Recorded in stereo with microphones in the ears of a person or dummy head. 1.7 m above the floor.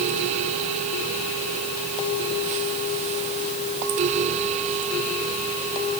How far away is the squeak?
I don't hear a squeak.